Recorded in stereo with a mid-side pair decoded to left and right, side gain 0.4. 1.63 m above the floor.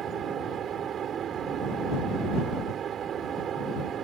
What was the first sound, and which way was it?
A fan, 60° right.